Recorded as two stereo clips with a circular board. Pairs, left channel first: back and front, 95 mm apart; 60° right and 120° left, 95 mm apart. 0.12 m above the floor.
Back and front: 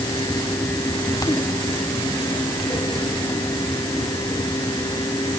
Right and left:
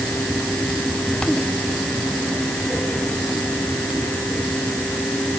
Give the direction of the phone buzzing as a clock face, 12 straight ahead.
No phone buzzing in this recording.